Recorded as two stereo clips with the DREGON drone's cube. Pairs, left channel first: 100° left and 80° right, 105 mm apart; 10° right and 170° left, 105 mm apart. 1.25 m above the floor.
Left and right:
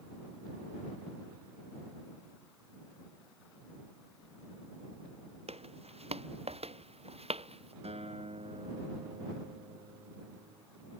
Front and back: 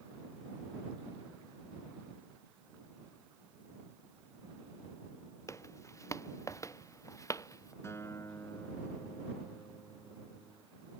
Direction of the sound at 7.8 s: 75° right.